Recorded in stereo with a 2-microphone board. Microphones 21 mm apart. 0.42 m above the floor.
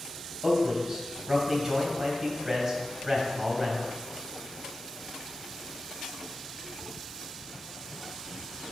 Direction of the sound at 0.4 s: 15° right (ahead or behind).